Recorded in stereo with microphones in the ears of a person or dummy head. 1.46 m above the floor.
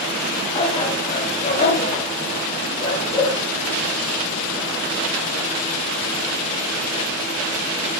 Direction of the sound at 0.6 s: 30° left (ahead or behind).